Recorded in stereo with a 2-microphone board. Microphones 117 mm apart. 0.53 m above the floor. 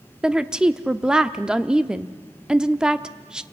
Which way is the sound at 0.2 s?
5° right (ahead or behind).